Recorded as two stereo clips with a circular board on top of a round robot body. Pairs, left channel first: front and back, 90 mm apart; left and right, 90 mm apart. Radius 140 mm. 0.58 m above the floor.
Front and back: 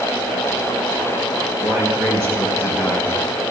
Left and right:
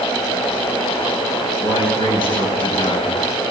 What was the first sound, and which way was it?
A man speaking, 115° left.